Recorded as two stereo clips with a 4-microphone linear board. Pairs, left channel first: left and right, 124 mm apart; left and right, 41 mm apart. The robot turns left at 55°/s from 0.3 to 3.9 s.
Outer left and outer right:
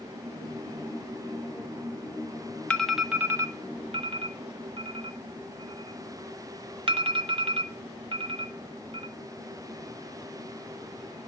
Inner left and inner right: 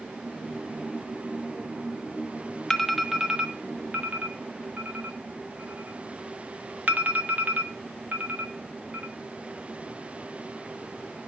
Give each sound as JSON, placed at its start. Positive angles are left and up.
{"t": 2.7, "sound": "an alarm", "side_deg": 10, "distance_m": 1.1}